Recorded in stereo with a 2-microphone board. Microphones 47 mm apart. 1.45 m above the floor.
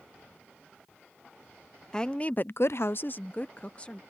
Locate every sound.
1.9 s a woman speaking: 15° left (ahead or behind); by 4.0 s 25° left (ahead or behind)